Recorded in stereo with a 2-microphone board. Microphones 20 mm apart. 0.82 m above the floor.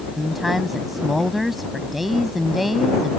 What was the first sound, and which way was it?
A woman speaking, 10° right (ahead or behind).